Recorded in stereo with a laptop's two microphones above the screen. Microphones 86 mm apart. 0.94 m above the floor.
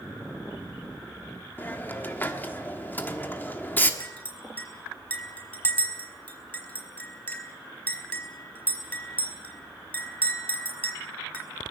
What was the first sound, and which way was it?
A hiss, 25° left (ahead or behind).